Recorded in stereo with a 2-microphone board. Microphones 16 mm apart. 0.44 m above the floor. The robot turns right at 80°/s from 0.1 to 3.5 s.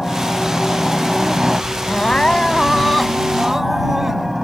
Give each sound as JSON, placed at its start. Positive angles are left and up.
{"t": 0.0, "sound": "a helicopter", "azimuth_deg": 75}
{"t": 1.9, "sound": "crying", "azimuth_deg": 80}